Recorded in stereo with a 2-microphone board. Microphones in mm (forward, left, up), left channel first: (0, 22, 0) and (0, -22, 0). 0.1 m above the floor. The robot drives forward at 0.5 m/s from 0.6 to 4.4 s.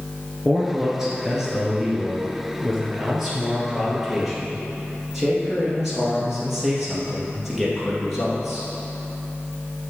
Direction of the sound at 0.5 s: 10° right (ahead or behind).